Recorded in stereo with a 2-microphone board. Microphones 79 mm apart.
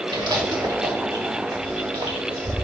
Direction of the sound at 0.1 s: 65° right (ahead or behind).